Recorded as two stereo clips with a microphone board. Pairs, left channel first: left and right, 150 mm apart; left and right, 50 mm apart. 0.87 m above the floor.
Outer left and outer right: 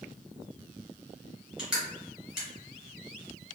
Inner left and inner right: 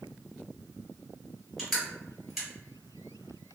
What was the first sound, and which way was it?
Crushing, 5° right (ahead or behind).